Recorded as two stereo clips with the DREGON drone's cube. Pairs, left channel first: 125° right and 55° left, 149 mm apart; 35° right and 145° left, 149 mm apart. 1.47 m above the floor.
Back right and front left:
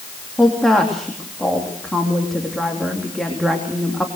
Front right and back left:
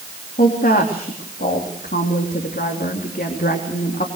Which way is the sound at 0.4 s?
35° right.